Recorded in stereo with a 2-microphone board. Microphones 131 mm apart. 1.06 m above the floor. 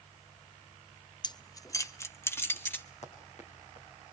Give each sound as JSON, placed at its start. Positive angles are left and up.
{"t": 1.2, "sound": "keys jangling", "side_deg": 35, "distance_m": 0.5}
{"t": 3.0, "sound": "running footsteps", "side_deg": 60, "distance_m": 5.5}